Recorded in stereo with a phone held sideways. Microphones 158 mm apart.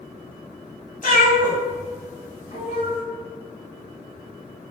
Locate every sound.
1.0 s a cat meowing: 60° left (ahead or behind), 2 m; by 3.0 s 45° left (ahead or behind), 3.5 m